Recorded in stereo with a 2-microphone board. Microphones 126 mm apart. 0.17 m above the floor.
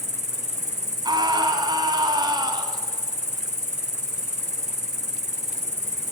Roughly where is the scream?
Right.